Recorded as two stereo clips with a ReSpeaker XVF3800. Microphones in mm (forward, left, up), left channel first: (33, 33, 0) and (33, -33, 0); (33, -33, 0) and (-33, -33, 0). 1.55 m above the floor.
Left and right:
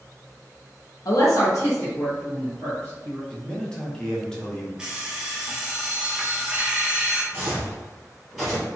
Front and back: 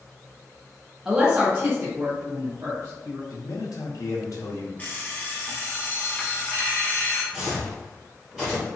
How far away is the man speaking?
About 0.8 m.